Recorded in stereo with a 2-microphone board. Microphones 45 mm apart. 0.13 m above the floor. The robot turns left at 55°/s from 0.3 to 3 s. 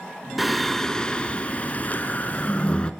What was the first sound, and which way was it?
Singing, 175° right.